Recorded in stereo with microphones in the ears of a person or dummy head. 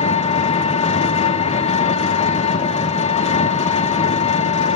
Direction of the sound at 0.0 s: 35° left (ahead or behind).